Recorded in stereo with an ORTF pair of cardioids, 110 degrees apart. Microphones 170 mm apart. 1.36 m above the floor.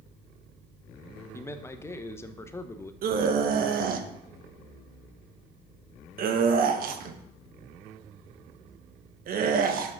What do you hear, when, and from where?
1.3 s a man speaking: 15° left, 0.9 m
3.0 s a scream: 60° right, 1.4 m